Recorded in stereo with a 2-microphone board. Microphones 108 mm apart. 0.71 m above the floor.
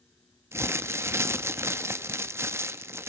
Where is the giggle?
I don't hear a giggle.